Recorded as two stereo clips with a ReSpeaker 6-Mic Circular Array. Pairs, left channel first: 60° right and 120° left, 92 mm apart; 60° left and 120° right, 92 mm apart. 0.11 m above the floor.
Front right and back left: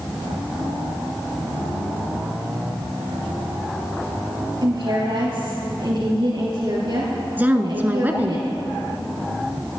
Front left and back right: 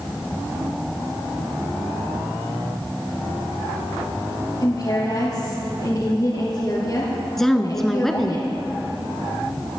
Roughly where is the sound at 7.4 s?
Behind left.